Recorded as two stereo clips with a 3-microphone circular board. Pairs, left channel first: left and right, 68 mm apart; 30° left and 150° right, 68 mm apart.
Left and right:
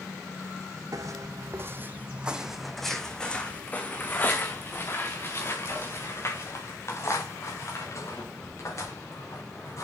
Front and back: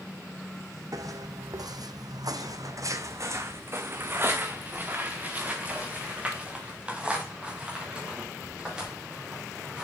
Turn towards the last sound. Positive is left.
turn(degrees=130)